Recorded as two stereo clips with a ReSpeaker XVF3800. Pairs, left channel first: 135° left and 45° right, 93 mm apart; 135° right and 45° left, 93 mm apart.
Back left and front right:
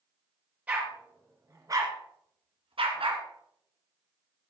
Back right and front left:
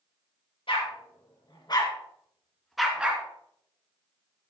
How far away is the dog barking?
About 3 m.